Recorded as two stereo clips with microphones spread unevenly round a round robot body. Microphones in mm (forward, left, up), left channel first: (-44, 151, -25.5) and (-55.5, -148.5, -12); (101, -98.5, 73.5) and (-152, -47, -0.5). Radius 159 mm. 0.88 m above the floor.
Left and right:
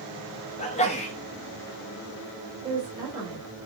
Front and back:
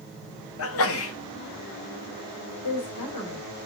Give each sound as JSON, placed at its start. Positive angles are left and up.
{"t": 0.6, "sound": "a sneeze", "azimuth_deg": 25, "distance_m": 1.3}
{"t": 2.6, "sound": "a woman speaking", "azimuth_deg": -15, "distance_m": 3.0}